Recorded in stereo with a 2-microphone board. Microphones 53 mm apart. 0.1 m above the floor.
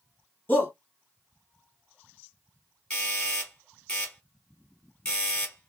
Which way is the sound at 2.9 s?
20° left (ahead or behind).